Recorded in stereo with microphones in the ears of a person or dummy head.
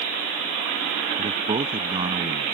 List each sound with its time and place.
1.2 s a man speaking: 25° right (ahead or behind)